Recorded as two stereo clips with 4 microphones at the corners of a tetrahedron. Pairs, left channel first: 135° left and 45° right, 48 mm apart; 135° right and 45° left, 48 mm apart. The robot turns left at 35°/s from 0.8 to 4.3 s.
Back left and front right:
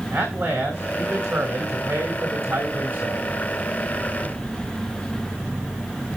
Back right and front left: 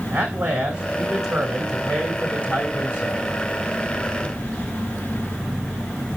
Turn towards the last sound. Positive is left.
turn(degrees=-145)